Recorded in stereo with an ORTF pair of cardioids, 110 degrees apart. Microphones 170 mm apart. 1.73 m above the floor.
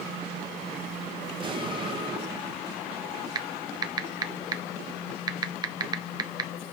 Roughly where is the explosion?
Ahead right.